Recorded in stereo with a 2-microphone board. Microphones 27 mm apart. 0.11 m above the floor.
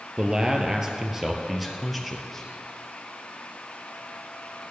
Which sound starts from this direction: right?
A man speaking, at 0.2 s.